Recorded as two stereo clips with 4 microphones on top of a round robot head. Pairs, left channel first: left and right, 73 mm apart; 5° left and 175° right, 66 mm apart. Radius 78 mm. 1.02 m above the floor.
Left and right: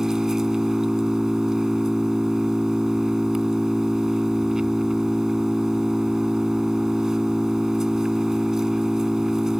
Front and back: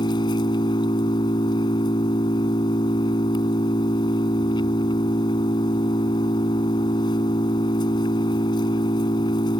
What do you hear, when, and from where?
0.0 s an engine running: 5° right